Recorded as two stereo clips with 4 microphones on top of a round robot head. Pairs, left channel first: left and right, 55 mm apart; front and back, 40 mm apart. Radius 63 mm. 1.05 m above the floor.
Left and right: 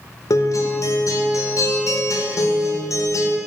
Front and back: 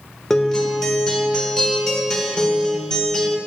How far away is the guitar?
About 0.8 m.